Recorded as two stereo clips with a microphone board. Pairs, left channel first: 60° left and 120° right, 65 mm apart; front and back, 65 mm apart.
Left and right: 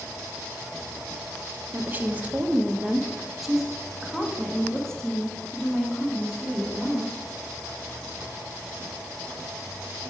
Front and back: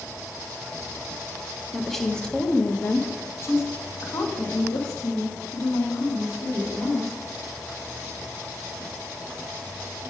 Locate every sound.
1.7 s a woman speaking: 95° right, 1.0 m; by 7.1 s 15° right, 3 m